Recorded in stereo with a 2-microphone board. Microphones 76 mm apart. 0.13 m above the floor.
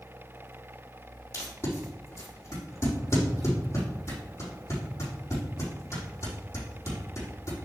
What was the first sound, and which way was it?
Tape being pulled, 40° left (ahead or behind).